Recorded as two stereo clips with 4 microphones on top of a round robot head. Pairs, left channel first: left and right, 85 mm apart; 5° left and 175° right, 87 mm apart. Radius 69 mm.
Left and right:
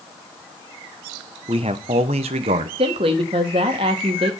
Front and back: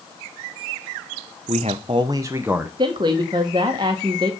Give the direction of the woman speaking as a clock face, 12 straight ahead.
4 o'clock.